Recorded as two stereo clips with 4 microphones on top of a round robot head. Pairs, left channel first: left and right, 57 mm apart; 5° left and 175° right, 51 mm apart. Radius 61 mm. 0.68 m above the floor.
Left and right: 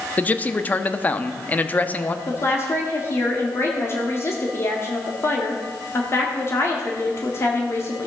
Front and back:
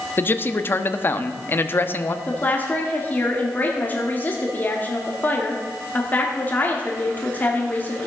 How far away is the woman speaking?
About 1.7 m.